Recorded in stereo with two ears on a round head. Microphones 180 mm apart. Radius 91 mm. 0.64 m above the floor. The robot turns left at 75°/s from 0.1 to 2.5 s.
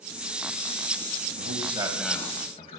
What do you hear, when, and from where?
1.4 s a man speaking: 130° right, 4 m; by 2.8 s 145° left, 4 m